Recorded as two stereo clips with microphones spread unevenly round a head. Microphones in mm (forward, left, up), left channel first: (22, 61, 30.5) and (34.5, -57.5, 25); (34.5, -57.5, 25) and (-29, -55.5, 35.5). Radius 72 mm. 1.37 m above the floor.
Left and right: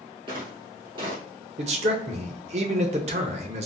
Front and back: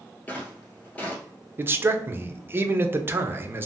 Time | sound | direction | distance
0.3 | footsteps | 70° right | 1.6 m
1.6 | a man speaking | 125° right | 0.7 m